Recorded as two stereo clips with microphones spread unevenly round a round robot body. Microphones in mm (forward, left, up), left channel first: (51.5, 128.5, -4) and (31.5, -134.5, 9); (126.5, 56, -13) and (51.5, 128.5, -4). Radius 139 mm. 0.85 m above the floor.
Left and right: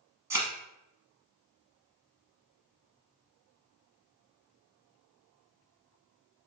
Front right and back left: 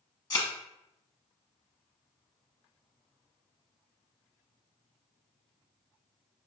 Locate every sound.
0.3 s a thud: 30° right, 0.8 m